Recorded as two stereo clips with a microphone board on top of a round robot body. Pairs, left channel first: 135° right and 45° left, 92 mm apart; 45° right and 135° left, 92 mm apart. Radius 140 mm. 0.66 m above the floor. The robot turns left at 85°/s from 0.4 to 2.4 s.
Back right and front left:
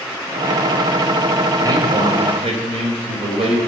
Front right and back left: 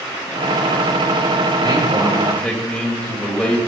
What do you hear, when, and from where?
1.6 s a man speaking: 100° left, 3 m; by 3.6 s 30° left, 3 m